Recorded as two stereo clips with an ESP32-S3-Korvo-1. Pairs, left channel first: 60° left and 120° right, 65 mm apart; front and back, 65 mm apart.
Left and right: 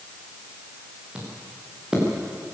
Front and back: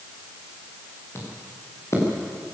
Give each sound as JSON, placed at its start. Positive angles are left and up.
{"t": 1.1, "sound": "footsteps", "azimuth_deg": -45, "distance_m": 8.0}